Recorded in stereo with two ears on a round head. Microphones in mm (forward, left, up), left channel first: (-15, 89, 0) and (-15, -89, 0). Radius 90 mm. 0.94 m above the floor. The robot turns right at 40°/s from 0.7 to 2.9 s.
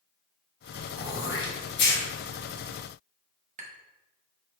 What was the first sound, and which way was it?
Throat clearing, 50° left (ahead or behind).